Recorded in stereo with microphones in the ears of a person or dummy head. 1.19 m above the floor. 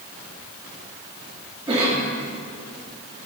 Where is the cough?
25° right (ahead or behind), 2 m.